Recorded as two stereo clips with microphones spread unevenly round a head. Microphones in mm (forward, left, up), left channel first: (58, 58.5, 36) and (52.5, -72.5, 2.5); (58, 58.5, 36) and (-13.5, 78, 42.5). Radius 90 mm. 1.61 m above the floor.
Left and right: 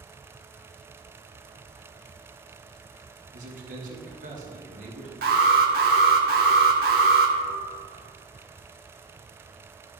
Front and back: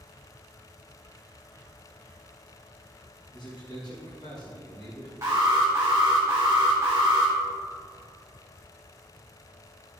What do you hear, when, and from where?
3.3 s a man speaking: 70° right, 2.5 m
5.2 s an alarm: 125° right, 1.3 m